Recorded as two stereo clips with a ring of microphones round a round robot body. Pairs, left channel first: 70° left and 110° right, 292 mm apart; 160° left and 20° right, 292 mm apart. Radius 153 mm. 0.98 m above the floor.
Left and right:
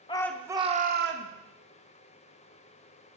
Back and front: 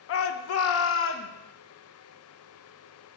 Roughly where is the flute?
I don't hear a flute.